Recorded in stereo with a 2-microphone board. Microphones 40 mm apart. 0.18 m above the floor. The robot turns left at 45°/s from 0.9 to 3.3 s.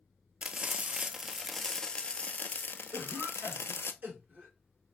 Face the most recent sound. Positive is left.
turn(degrees=-50)  # may be behind; listen again after turning